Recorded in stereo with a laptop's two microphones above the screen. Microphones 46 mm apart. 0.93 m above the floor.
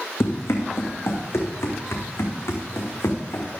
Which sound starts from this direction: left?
Running footsteps, at 0.2 s.